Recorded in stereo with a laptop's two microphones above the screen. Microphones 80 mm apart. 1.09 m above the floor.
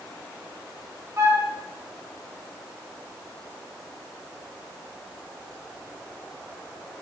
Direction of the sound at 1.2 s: 35° right (ahead or behind).